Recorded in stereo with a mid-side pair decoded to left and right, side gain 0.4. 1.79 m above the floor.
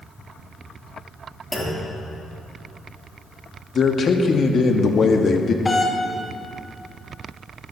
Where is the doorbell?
25° left, 1.8 m.